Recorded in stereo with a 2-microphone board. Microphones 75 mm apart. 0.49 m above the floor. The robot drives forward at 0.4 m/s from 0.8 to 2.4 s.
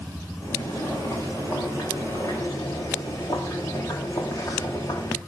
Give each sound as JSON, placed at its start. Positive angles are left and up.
{"t": 0.4, "sound": "boiling", "side_deg": 50, "distance_m": 6.5}